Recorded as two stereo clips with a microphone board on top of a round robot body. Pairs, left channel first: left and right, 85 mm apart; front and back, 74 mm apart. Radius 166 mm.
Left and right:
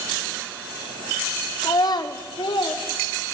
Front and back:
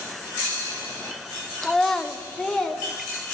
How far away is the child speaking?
About 0.7 m.